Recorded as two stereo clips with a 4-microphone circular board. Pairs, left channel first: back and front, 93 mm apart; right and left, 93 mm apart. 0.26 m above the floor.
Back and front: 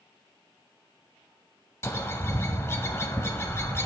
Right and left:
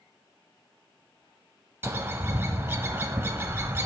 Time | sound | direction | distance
1.8 | a bird | 135° left | 0.8 m